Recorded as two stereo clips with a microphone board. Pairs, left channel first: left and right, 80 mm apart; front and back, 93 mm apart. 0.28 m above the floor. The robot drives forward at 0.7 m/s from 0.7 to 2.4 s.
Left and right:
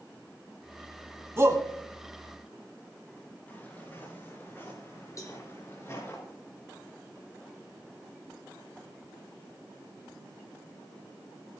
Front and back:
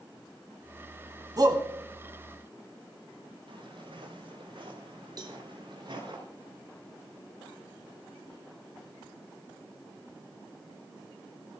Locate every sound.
1.4 s a shout: 140° right, 2 m; by 1.6 s 145° right, 2.5 m
3.5 s footsteps: 155° left, 8.5 m; by 6.2 s 140° left, 10.5 m
5.2 s a cowbell: 135° left, 2 m